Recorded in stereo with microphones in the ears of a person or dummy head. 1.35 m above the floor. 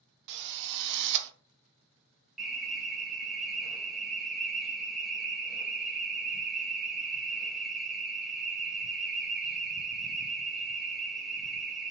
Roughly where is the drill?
Right.